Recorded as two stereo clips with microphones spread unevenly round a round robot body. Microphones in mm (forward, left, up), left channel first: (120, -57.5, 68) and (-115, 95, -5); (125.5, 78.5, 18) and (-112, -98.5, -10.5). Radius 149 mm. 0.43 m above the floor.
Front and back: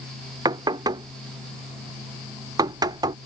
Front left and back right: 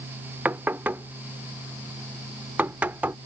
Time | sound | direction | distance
0.5 | knocking | 150° left | ?